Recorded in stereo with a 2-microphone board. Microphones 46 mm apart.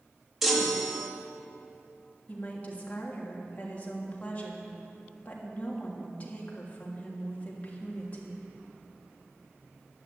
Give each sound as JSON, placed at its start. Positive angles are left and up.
{"t": 0.4, "sound": "a chime", "side_deg": -5, "distance_m": 2.0}
{"t": 2.3, "sound": "a woman speaking", "side_deg": 35, "distance_m": 3.0}